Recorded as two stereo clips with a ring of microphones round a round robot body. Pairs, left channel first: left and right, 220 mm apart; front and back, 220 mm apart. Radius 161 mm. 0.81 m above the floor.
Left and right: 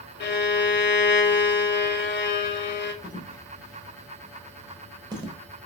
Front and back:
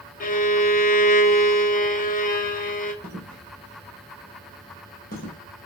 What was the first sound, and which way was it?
A violin, 55° left.